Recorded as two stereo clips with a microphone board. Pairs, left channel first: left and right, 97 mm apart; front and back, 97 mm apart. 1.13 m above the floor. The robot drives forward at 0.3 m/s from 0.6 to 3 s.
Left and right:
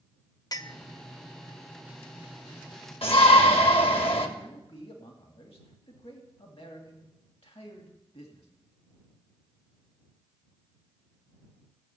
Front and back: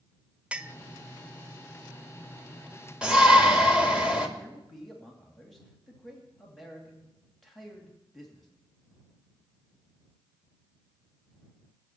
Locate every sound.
0.5 s a clink: 105° left, 0.5 m; by 0.8 s 115° left, 0.5 m
3.0 s a shout: 100° left, 2 m
4.4 s a man speaking: 85° left, 2.5 m